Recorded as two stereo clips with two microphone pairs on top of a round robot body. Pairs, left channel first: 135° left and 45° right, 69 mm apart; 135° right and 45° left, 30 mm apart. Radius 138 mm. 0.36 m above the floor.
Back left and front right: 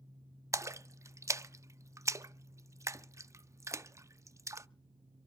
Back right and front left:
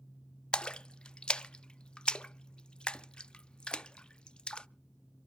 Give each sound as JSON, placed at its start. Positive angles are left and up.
{"t": 0.5, "sound": "a splash", "azimuth_deg": -75, "distance_m": 0.6}